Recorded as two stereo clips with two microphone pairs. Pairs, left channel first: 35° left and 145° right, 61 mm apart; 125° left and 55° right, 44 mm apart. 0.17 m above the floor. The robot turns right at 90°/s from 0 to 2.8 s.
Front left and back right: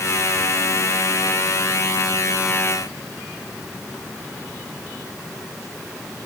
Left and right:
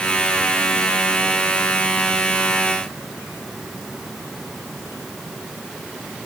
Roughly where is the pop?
I don't hear a pop.